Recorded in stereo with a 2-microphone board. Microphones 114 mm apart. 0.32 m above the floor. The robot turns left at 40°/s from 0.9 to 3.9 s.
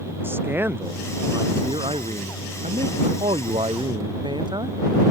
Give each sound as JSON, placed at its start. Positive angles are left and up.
{"t": 0.2, "sound": "a man speaking", "azimuth_deg": -20}